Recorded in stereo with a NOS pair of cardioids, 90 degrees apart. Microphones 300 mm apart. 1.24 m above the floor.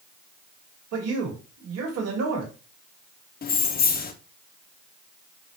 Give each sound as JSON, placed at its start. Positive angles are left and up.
{"t": 0.9, "sound": "a man speaking", "azimuth_deg": -55, "distance_m": 1.4}
{"t": 3.4, "sound": "keys jangling", "azimuth_deg": 30, "distance_m": 0.6}